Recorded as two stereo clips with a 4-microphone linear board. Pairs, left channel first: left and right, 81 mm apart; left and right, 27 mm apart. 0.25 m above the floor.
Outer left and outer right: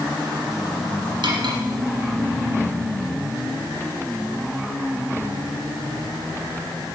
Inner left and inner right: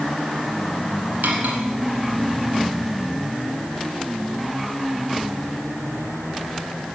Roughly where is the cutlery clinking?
Right.